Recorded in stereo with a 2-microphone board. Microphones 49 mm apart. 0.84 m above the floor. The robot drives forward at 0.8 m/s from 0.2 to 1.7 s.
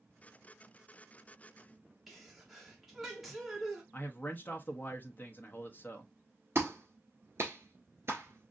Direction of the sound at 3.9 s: 40° left (ahead or behind).